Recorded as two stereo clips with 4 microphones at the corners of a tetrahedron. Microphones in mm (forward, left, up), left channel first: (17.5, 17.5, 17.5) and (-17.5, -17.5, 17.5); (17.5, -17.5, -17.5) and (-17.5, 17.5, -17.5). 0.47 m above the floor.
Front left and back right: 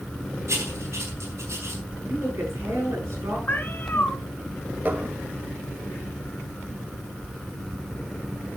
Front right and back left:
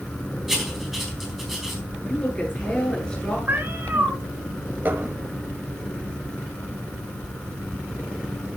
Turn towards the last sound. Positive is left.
turn(degrees=175)